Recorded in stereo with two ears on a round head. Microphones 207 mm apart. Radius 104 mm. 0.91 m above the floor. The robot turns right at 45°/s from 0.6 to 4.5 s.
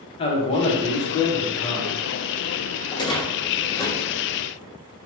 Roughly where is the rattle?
Centre.